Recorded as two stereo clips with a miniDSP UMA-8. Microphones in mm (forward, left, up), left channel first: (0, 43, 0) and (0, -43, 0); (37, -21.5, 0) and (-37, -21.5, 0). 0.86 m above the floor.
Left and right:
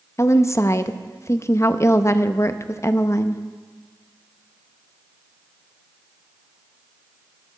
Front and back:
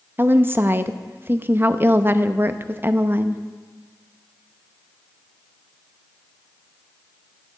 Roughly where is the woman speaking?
Behind left.